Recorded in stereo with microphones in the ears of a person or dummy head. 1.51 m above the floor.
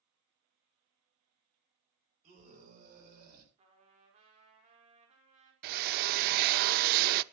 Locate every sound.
2.2 s a scream: 45° right (ahead or behind), 7.5 m; by 3.5 s 50° right (ahead or behind), 8.5 m
3.6 s a trumpet: 35° right (ahead or behind), 4.5 m
5.6 s a drill: 55° right (ahead or behind), 0.5 m